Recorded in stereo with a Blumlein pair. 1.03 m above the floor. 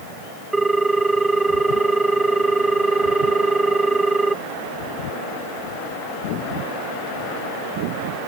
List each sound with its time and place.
0.5 s a ringtone: 5° right